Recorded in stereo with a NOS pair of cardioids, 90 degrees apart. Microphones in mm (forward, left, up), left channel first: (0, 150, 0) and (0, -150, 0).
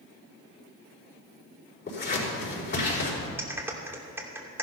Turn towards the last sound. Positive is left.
turn(degrees=-10)